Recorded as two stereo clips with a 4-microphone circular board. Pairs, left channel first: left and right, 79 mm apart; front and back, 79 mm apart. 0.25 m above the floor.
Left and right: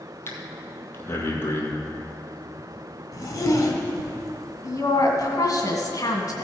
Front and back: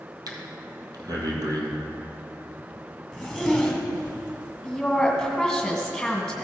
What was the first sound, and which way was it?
Breathing, 150° left.